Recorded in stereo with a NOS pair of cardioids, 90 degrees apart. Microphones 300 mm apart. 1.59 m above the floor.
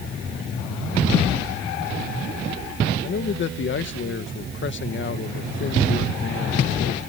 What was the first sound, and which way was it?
A man speaking, 40° left.